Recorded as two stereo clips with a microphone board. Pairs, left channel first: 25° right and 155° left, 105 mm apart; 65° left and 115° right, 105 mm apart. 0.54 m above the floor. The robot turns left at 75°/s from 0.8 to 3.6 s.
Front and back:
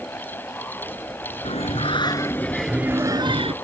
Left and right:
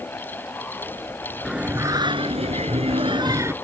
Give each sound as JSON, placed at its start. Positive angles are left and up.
{"t": 1.4, "sound": "singing", "azimuth_deg": -25}